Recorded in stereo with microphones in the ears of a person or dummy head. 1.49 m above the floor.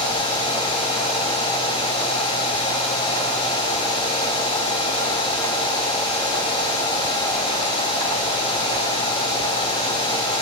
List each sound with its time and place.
Only background noise.